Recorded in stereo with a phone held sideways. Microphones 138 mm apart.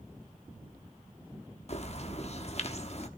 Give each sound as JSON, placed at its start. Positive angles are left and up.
{"t": 1.7, "sound": "a bird", "side_deg": 50, "distance_m": 1.0}